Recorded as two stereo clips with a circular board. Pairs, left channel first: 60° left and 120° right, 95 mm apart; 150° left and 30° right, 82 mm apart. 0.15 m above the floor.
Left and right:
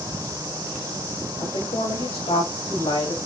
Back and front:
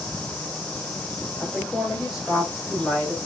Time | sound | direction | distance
1.4 | a woman speaking | 45° left | 6 m